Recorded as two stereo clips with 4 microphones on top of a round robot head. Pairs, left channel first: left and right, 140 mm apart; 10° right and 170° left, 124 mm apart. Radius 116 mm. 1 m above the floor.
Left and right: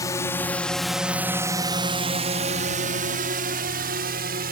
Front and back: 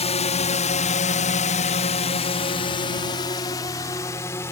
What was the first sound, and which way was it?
A drone, 20° left.